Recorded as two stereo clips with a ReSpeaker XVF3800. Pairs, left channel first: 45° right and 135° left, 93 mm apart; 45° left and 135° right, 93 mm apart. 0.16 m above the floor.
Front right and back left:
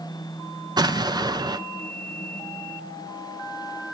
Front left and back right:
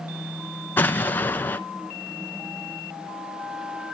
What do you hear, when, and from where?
0.8 s an explosion: 110° left, 0.7 m